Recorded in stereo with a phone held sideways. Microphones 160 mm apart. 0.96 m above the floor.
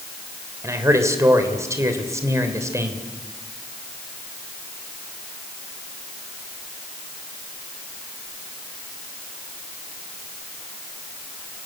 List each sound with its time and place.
0.6 s a man speaking: 20° right (ahead or behind), 3.5 m